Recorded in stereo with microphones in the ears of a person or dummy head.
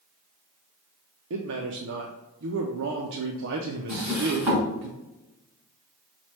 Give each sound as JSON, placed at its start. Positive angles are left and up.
{"t": 1.3, "sound": "a man speaking", "side_deg": -65, "distance_m": 0.5}
{"t": 3.9, "sound": "a drawer", "side_deg": -10, "distance_m": 1.9}